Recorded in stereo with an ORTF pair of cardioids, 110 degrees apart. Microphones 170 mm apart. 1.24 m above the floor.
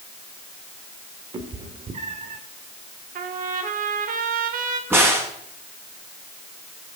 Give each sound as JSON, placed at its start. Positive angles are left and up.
{"t": 1.3, "sound": "a cat meowing", "azimuth_deg": -30, "distance_m": 1.9}
{"t": 3.1, "sound": "a trumpet", "azimuth_deg": -55, "distance_m": 1.8}
{"t": 4.9, "sound": "a crack", "azimuth_deg": -15, "distance_m": 5.0}